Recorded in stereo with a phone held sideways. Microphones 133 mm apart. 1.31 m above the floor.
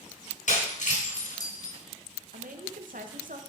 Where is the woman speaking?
85° right, 1.1 m.